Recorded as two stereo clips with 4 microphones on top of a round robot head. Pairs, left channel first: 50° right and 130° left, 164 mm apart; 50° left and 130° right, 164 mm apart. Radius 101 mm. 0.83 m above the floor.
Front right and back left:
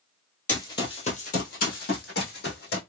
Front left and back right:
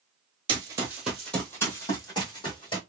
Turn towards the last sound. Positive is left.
turn(degrees=-15)